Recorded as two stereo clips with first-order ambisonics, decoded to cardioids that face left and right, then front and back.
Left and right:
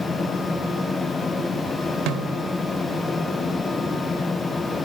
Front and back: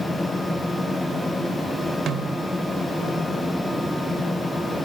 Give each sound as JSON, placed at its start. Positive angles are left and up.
{"t": 2.1, "sound": "a snare drum", "azimuth_deg": -125, "distance_m": 2.5}